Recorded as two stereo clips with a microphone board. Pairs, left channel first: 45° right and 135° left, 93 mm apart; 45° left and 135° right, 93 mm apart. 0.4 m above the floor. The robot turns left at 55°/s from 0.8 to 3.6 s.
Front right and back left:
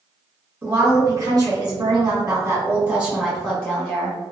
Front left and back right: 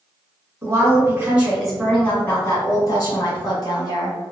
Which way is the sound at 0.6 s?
175° right.